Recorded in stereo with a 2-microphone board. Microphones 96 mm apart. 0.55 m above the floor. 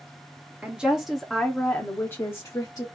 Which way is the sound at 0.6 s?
15° right (ahead or behind).